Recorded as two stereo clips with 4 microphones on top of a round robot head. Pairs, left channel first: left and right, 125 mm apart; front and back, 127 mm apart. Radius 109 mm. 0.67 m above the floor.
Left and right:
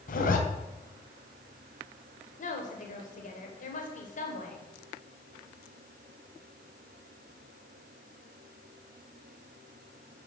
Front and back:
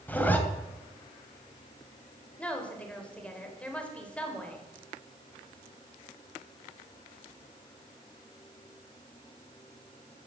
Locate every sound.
0.1 s a zipper: 75° left, 2.5 m
2.4 s a woman speaking: 80° left, 4 m